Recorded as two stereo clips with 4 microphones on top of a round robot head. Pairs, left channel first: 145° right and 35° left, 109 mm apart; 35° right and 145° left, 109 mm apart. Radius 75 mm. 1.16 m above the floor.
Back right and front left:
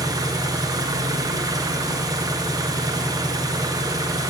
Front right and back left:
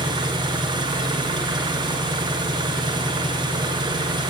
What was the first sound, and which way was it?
An engine running, 95° left.